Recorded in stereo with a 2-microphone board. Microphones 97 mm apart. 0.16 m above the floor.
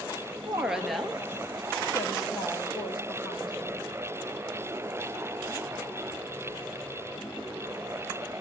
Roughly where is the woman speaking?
Centre.